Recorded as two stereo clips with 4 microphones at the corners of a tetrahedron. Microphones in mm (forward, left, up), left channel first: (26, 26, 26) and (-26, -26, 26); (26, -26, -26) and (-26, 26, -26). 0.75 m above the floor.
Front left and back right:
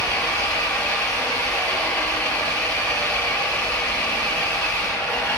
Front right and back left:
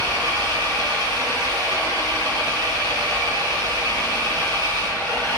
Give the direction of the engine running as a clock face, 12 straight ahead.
8 o'clock.